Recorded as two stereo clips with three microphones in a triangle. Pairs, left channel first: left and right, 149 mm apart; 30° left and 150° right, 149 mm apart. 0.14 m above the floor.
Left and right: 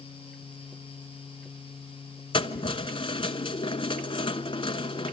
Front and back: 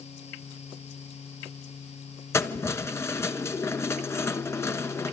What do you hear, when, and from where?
2.3 s keys jangling: 90° left, 1.1 m